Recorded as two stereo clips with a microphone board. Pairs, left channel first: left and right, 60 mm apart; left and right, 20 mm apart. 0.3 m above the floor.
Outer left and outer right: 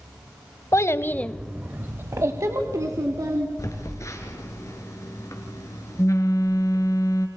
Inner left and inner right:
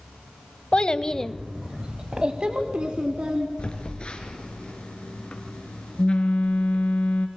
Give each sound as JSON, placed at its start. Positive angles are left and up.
{"t": 0.7, "sound": "a child speaking", "side_deg": 55, "distance_m": 1.0}
{"t": 3.6, "sound": "a phone buzzing", "side_deg": 60, "distance_m": 2.5}